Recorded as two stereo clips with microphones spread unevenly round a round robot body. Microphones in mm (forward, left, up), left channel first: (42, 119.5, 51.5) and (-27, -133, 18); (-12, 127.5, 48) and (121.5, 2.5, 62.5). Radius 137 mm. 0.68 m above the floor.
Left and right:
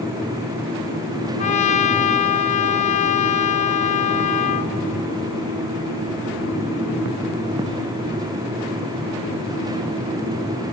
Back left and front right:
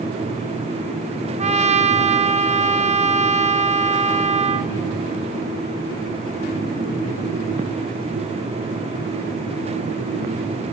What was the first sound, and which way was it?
A trumpet, 10° left.